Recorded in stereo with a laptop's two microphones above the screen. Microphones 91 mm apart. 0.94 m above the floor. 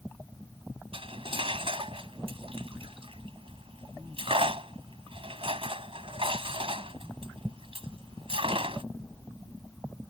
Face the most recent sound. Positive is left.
turn(degrees=-90)